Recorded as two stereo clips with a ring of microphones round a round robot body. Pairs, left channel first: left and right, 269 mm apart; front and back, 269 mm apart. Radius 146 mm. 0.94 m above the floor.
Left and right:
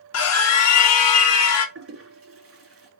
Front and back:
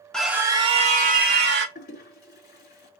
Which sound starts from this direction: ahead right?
A toilet flushing, at 1.8 s.